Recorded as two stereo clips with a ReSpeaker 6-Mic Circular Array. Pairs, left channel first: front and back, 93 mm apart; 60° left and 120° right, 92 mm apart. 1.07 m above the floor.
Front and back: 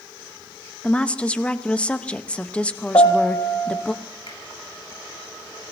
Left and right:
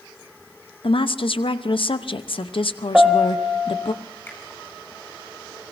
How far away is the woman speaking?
About 0.8 m.